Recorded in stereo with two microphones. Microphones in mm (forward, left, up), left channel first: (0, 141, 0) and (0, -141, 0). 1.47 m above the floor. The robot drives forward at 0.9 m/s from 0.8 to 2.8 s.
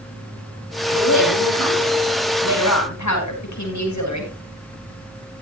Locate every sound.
0.9 s a woman speaking: 80° left, 5.5 m